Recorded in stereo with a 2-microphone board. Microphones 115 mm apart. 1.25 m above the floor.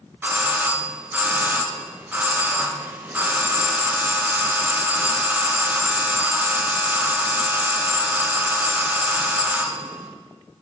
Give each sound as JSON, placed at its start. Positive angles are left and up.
{"t": 0.2, "sound": "a doorbell", "side_deg": -15, "distance_m": 0.5}